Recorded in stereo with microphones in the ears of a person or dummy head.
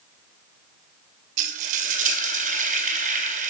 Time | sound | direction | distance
1.4 | frying | 45° right (ahead or behind) | 1.2 m